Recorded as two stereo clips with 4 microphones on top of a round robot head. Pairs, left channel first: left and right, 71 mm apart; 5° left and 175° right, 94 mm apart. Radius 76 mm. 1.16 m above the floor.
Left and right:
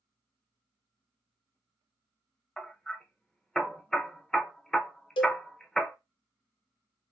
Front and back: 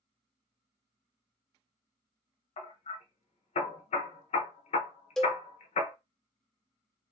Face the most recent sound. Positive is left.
turn(degrees=90)